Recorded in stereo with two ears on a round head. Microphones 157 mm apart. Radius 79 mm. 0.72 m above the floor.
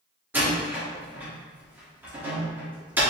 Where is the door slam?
10° right (ahead or behind), 1.2 m.